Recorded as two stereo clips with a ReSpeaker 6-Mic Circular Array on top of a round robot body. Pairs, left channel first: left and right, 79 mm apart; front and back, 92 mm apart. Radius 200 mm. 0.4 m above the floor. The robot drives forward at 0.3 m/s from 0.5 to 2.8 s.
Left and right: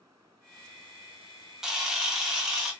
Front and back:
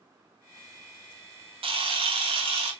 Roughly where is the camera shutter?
Behind.